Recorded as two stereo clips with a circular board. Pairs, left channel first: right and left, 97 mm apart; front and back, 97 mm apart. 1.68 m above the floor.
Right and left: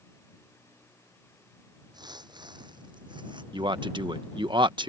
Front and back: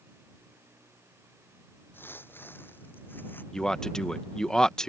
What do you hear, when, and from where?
1.9 s footsteps: 65° left
3.5 s a man speaking: 80° left